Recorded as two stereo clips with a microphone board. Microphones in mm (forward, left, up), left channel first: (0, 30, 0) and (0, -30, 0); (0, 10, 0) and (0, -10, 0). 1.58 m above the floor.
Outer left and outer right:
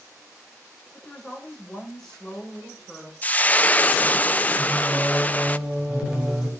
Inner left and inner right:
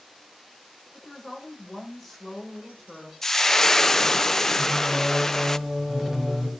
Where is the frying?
25° left (ahead or behind), 0.5 m.